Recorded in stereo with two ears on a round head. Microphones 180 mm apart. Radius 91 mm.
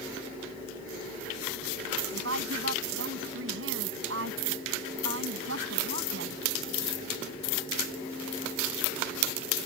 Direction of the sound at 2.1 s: 65° right (ahead or behind).